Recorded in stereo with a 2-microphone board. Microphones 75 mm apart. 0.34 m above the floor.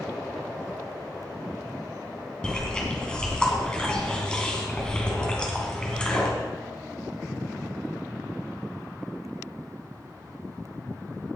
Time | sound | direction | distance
2.4 | chewing | 10° left (ahead or behind) | 2.5 m